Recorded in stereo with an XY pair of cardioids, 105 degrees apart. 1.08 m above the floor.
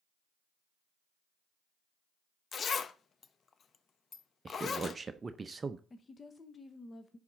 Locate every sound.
2.5 s a zipper: 45° left, 0.7 m
4.5 s a man speaking: 30° right, 0.6 m
5.9 s a woman speaking: 30° left, 0.8 m